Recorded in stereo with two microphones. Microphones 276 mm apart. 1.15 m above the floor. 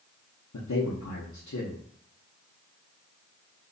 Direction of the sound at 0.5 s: 80° left.